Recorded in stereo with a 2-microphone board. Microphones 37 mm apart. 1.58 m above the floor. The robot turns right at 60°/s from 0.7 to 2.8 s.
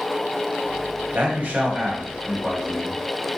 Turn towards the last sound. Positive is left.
turn(degrees=20)